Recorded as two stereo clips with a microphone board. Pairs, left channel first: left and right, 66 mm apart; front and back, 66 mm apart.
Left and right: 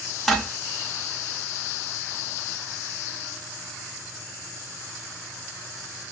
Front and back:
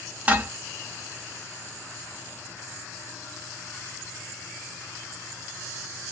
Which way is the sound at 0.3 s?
170° left.